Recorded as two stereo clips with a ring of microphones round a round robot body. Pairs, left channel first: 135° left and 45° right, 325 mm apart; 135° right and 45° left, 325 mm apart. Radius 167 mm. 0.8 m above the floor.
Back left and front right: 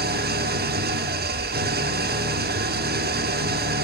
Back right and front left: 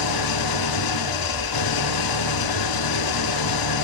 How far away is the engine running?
About 0.9 m.